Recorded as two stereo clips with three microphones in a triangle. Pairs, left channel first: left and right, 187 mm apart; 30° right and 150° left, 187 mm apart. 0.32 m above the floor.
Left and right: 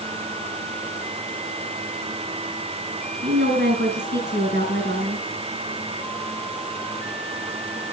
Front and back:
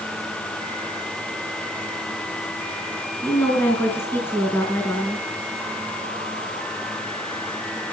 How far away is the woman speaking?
About 4.5 m.